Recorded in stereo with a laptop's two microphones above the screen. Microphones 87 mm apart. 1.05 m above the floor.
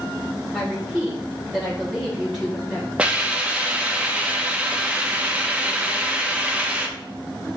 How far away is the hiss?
About 0.6 m.